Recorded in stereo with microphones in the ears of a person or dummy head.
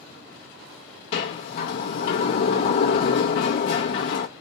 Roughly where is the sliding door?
Left.